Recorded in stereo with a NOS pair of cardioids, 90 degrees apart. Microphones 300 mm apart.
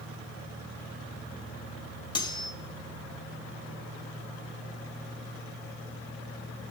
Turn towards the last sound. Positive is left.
turn(degrees=15)